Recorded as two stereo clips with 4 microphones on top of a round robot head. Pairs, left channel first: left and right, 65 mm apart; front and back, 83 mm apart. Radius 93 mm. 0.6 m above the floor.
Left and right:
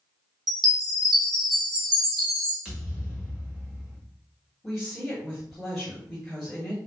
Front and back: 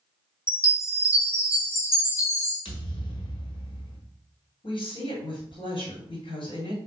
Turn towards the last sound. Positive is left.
turn(degrees=0)